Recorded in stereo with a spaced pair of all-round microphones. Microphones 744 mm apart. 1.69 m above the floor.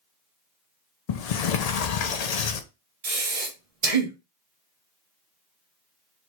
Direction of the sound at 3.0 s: 50° right (ahead or behind).